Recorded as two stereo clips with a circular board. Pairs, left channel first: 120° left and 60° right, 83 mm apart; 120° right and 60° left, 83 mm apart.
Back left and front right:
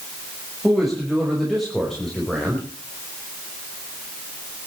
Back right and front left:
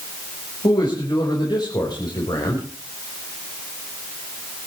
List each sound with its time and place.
0.6 s a man speaking: 150° right, 6 m; by 2.6 s 155° right, 5 m